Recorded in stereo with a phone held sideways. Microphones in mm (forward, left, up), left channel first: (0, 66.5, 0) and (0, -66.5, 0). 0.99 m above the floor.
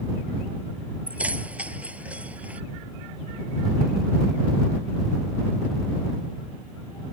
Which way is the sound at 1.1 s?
10° right (ahead or behind).